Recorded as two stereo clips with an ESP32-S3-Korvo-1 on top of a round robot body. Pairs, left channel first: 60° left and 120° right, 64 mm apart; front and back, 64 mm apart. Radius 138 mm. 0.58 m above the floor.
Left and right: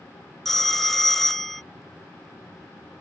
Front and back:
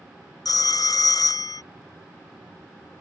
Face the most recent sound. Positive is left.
turn(degrees=-30)